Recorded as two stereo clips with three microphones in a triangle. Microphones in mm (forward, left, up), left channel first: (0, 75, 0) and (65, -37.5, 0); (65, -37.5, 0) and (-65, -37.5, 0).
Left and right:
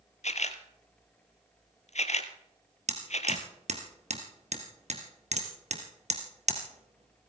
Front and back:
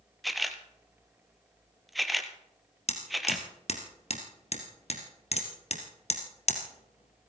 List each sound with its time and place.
0.2 s a camera shutter: 90° left, 1.2 m
2.9 s hammering: 30° right, 2.5 m